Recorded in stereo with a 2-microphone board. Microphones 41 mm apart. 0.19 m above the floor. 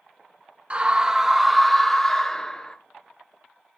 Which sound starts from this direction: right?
A scream, at 0.7 s.